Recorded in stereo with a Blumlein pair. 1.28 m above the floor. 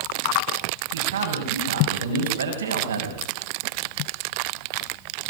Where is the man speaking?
70° right, 8 m.